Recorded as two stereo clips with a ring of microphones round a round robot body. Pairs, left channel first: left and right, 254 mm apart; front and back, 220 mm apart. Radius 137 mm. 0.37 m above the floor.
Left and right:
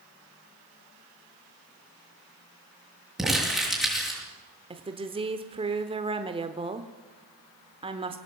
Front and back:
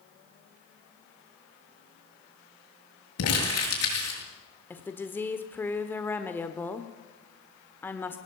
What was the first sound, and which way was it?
Crumpling, straight ahead.